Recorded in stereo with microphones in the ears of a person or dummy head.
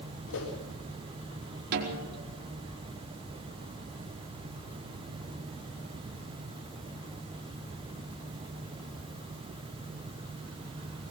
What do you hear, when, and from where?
0.3 s a whoosh: 80° left, 6 m
1.7 s a snare drum: 55° right (ahead or behind), 4.5 m